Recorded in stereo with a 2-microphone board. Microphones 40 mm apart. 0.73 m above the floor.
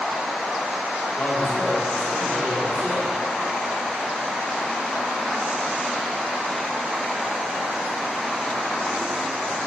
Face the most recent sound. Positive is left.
turn(degrees=55)  # may be behind; listen again after turning